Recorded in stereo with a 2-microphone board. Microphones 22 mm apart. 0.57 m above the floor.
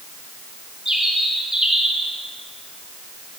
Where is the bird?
25° right (ahead or behind), 3.5 m.